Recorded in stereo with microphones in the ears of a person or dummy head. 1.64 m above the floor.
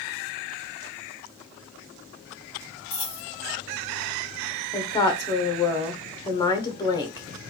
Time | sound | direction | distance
2.9 | a dropped coin | 20° left (ahead or behind) | 2 m
4.7 | a woman speaking | 20° left (ahead or behind) | 0.9 m